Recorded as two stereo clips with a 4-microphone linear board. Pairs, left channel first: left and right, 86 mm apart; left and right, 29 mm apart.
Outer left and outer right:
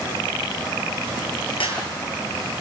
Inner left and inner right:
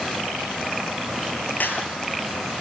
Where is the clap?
85° left, 9 m.